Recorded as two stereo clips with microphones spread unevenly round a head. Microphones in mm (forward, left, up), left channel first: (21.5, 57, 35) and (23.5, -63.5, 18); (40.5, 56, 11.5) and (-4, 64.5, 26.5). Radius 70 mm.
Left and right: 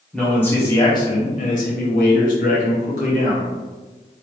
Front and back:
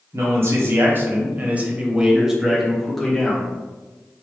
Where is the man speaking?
170° left, 1.0 m; by 3.5 s 75° left, 1.5 m.